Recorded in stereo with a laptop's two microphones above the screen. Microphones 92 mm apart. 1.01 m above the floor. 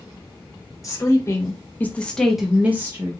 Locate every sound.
0.8 s a woman speaking: 35° left (ahead or behind), 1.2 m; by 3.1 s 30° right (ahead or behind), 0.7 m